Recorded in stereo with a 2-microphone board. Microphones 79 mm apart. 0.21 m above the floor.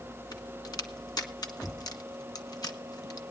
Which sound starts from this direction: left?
A crack, at 0.3 s.